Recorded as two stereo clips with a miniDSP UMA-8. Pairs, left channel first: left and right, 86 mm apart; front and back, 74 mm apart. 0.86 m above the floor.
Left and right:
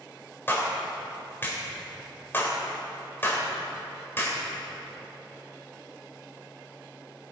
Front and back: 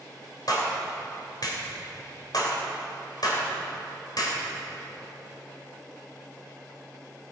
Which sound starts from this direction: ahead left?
A clap, at 0.5 s.